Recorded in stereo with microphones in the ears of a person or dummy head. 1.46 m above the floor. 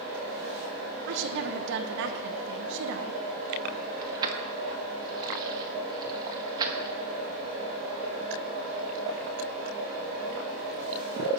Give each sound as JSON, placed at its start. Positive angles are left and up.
{"t": 1.1, "sound": "a woman speaking", "side_deg": -75, "distance_m": 1.1}
{"t": 4.0, "sound": "keys jangling", "side_deg": -20, "distance_m": 1.3}